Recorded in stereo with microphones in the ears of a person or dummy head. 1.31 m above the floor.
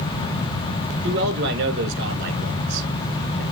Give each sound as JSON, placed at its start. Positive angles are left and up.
{"t": 1.0, "sound": "a man speaking", "side_deg": -55, "distance_m": 4.0}